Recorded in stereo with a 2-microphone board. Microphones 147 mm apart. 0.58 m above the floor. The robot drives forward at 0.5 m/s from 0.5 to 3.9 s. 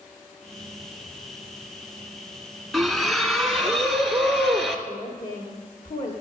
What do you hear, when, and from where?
2.7 s a splash: centre (ahead or behind), 0.9 m
4.9 s a woman speaking: 45° left (ahead or behind), 1.4 m